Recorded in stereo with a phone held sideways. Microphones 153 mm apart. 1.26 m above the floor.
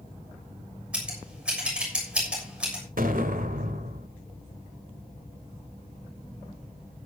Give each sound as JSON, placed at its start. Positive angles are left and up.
{"t": 0.9, "sound": "scissors", "side_deg": -5, "distance_m": 6.5}
{"t": 3.0, "sound": "an explosion", "side_deg": -65, "distance_m": 1.9}